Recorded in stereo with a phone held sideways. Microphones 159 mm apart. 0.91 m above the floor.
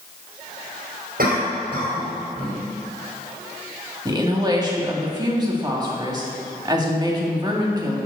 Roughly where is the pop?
I don't hear a pop.